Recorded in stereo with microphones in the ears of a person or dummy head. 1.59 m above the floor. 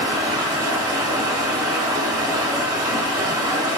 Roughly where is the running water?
Centre.